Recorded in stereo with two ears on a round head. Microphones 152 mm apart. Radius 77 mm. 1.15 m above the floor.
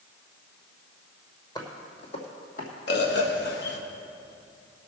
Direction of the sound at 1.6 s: 25° left (ahead or behind).